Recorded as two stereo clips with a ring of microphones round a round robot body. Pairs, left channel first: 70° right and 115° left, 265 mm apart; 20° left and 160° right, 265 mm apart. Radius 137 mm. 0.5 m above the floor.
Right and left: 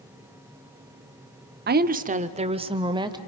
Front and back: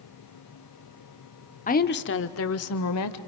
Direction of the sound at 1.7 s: 75° left.